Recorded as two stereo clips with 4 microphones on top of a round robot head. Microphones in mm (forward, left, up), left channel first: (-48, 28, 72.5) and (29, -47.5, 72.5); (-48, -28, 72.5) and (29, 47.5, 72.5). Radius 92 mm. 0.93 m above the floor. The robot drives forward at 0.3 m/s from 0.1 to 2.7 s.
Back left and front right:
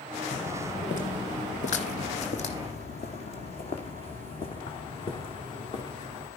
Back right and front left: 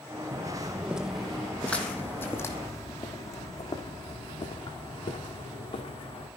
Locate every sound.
0.3 s footsteps: 110° left, 1.9 m; by 6.3 s straight behind, 4.5 m